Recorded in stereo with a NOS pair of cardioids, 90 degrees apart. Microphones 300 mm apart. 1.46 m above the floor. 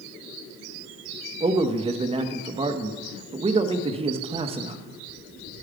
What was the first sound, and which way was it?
A man speaking, 20° right.